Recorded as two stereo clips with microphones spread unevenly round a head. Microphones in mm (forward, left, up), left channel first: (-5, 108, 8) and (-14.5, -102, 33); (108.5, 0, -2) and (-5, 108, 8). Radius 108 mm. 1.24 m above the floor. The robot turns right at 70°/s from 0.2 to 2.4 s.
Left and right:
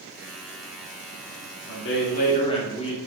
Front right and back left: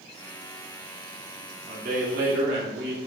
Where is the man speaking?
100° left, 2.5 m; by 3.0 s 150° left, 2.5 m.